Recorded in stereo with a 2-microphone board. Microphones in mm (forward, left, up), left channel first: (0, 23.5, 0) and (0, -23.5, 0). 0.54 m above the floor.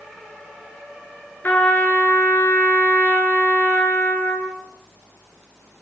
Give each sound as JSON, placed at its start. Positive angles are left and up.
{"t": 1.4, "sound": "a trumpet", "side_deg": 40, "distance_m": 7.5}